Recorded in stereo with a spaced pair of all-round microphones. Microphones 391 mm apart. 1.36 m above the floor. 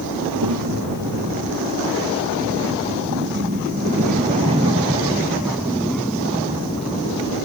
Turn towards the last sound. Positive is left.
turn(degrees=15)  # may be behind; listen again after turning